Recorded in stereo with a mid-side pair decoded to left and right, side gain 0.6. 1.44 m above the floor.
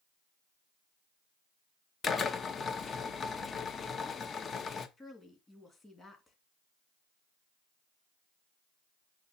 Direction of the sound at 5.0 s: 20° left.